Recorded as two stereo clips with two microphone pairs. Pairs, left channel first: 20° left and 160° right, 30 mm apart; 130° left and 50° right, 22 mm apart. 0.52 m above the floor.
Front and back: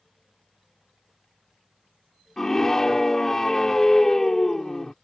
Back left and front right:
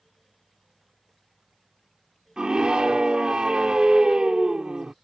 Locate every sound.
2.4 s a scream: 55° right